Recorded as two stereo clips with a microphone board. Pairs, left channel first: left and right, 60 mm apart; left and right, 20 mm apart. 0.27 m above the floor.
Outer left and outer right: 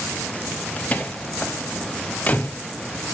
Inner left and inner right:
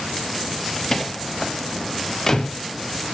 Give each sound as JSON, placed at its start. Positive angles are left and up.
{"t": 0.8, "sound": "a door slam", "side_deg": 25, "distance_m": 0.9}